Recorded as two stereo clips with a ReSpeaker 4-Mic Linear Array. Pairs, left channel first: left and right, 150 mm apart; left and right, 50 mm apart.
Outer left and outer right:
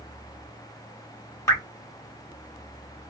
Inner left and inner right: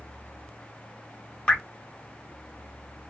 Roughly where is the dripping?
Left.